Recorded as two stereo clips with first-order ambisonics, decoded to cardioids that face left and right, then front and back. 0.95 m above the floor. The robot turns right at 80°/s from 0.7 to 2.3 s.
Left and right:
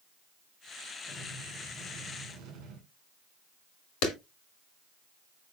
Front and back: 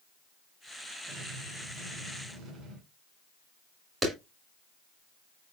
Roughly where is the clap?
Left.